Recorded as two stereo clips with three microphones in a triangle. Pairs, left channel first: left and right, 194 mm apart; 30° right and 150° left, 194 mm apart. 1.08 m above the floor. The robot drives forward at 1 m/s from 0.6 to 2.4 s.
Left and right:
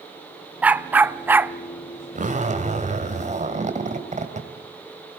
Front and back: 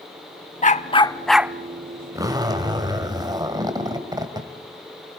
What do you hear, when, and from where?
0.6 s a dog barking: 10° right, 0.9 m; by 1.5 s 160° right, 0.7 m
2.1 s a zipper: 135° right, 2.5 m; by 4.5 s 140° right, 3 m